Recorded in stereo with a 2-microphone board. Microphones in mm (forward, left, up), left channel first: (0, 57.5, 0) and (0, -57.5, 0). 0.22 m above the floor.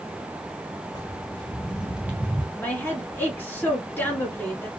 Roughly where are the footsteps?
Left.